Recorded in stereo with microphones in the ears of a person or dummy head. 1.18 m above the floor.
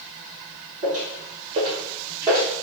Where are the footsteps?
40° right (ahead or behind), 1.7 m; by 2.5 s 10° right (ahead or behind), 1.3 m.